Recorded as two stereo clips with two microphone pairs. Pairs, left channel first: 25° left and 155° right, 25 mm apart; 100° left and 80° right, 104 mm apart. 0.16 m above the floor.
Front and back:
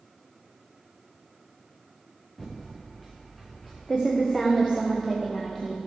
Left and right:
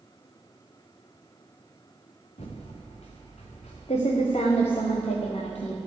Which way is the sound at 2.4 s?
105° left.